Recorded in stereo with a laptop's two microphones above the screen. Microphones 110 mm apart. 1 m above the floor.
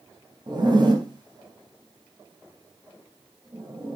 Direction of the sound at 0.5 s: 40° right (ahead or behind).